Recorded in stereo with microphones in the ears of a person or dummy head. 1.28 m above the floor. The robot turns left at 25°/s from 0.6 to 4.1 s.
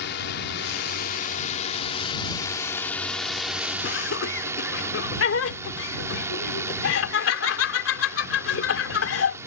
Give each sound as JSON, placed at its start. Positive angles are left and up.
{"t": 0.0, "sound": "a drone", "azimuth_deg": 65}
{"t": 3.8, "sound": "laughter", "side_deg": 70}